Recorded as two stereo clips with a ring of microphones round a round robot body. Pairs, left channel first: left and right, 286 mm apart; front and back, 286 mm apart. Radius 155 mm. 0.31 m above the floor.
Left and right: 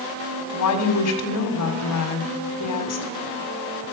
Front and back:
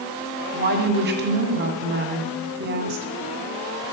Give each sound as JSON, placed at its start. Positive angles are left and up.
{"t": 0.5, "sound": "a woman speaking", "azimuth_deg": 125, "distance_m": 2.0}